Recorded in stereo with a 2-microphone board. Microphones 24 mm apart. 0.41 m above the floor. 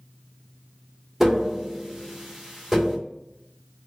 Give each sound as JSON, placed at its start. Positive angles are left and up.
{"t": 1.2, "sound": "tapping", "side_deg": -10, "distance_m": 1.3}